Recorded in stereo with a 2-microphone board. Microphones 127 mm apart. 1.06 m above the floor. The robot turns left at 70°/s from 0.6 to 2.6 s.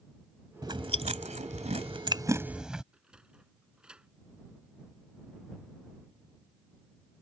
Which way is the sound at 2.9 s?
10° right (ahead or behind).